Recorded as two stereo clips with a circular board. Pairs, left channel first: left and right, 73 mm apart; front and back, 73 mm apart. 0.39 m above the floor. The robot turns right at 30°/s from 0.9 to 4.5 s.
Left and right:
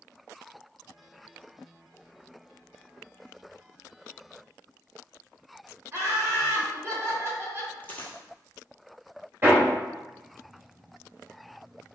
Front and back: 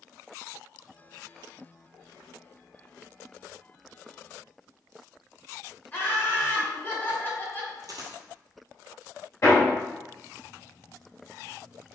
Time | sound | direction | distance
5.9 | laughter | 55° right | 1.2 m
7.8 | a dropped coin | 155° left | 0.9 m
9.4 | hammering | 40° right | 1.7 m